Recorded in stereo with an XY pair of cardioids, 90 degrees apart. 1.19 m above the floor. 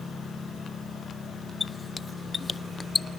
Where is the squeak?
30° left, 0.6 m.